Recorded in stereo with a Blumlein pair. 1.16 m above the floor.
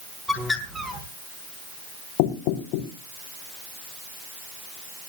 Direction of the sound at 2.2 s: 45° left.